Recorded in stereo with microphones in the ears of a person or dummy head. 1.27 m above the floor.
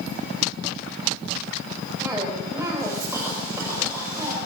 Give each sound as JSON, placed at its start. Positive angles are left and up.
{"t": 2.0, "sound": "a cough", "side_deg": -15, "distance_m": 4.5}